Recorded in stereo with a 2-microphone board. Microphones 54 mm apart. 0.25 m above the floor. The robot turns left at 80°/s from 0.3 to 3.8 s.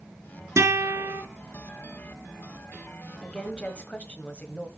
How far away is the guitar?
About 1.2 m.